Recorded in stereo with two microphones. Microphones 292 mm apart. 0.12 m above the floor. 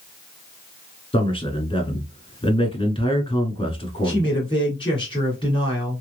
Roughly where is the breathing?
I don't hear breathing.